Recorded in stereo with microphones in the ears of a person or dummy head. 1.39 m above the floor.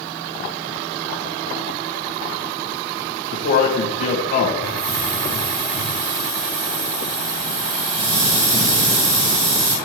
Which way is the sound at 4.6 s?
40° right (ahead or behind).